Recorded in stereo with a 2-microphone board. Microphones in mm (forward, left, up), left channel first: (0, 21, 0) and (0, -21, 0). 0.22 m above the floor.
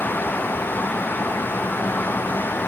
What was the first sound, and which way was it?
Only background noise.